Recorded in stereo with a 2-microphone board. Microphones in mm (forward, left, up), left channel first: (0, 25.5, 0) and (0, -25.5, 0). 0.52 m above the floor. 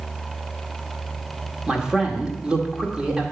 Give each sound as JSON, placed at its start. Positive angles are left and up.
{"t": 1.7, "sound": "a man speaking", "side_deg": -15, "distance_m": 1.4}